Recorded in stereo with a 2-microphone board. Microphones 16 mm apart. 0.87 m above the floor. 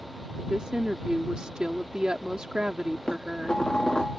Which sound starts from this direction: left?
Dishes clattering, at 3.1 s.